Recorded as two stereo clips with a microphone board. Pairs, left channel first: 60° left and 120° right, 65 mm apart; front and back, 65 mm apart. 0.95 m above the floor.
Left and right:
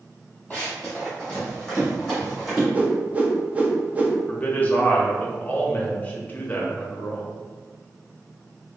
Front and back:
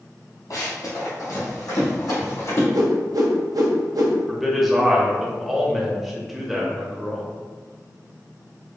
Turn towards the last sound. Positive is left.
turn(degrees=95)